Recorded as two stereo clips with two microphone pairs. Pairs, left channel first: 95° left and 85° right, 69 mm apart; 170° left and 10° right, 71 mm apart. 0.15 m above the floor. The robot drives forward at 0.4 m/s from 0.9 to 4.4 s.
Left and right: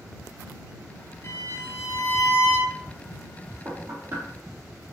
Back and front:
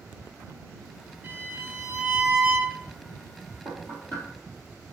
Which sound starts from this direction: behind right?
Knocking, at 3.6 s.